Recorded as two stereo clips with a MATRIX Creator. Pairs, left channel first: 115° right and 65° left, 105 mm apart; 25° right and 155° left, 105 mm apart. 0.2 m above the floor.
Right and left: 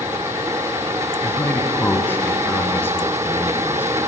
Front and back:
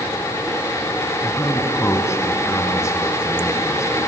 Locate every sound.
1.2 s a man speaking: 60° right, 1.7 m